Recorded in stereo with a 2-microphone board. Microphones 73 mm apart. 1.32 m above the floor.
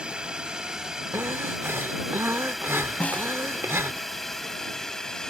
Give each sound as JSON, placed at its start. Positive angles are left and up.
{"t": 0.0, "sound": "a drone", "side_deg": -15}
{"t": 1.1, "sound": "breathing", "side_deg": -40}
{"t": 3.0, "sound": "a snare drum", "side_deg": 20}